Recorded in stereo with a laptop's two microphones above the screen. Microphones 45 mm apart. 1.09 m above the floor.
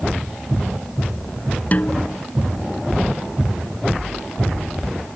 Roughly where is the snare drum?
Left.